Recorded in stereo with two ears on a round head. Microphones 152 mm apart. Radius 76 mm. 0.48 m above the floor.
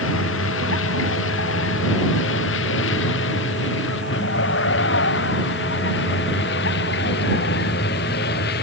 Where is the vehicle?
75° left (ahead or behind); by 8.6 s 60° left (ahead or behind).